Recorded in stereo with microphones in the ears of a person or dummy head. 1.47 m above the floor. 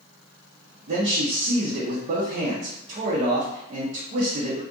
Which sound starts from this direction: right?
A man speaking, at 0.9 s.